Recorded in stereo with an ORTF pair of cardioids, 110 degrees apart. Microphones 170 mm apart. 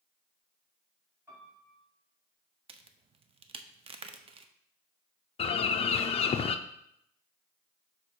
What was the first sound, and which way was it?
A piano, 15° right.